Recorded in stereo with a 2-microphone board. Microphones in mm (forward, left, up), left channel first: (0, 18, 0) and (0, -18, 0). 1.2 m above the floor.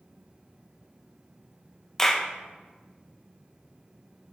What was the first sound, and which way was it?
A clap, 15° left (ahead or behind).